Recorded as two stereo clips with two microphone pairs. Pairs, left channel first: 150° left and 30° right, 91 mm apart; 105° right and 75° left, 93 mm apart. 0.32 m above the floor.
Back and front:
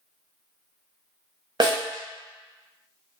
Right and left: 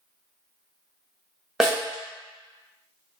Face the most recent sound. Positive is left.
turn(degrees=-10)